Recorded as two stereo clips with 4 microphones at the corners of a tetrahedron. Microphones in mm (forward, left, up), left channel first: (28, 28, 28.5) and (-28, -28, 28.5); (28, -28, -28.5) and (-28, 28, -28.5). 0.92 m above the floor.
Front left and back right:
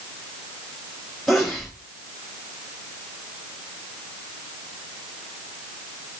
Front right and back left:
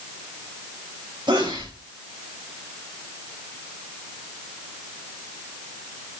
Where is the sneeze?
130° left, 4.5 m.